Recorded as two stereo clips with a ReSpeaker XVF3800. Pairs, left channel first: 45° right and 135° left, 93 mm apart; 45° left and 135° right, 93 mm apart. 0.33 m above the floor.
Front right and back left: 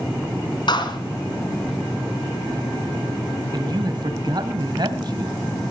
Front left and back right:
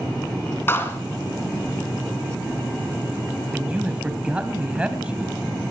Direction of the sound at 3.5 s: 150° left.